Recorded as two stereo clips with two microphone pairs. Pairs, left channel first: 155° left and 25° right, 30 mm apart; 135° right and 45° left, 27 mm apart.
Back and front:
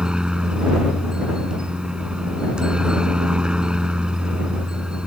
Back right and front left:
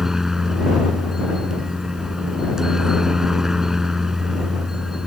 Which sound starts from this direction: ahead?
A helicopter, at 0.0 s.